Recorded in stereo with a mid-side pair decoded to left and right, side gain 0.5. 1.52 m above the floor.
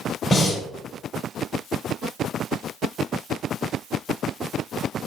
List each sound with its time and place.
0.3 s breathing: 35° left, 7.5 m